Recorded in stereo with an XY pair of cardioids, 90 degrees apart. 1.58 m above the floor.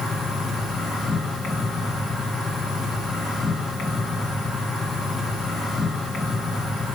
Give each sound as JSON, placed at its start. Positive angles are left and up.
{"t": 0.0, "sound": "an insect", "azimuth_deg": 70, "distance_m": 1.8}